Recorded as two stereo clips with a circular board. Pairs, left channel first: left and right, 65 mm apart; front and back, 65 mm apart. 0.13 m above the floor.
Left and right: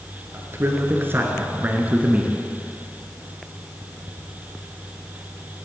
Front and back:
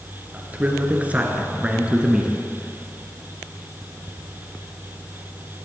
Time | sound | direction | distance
0.3 | a man speaking | 120° right | 2 m